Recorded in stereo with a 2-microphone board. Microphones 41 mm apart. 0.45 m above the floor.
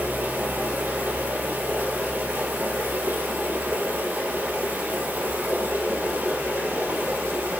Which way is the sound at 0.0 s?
60° right (ahead or behind).